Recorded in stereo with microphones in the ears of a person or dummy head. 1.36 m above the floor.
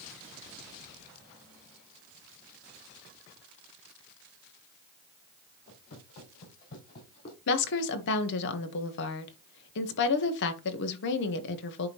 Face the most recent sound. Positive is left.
turn(degrees=60)  # may be behind; listen again after turning